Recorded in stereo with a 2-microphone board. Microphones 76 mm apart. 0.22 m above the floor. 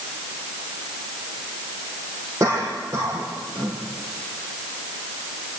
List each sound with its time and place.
2.4 s a cough: 40° right (ahead or behind), 8.5 m